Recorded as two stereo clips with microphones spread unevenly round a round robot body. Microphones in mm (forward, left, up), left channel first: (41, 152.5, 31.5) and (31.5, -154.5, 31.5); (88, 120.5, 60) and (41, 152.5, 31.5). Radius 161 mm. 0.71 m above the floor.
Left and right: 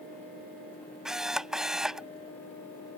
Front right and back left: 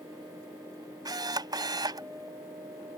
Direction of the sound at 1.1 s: Straight behind.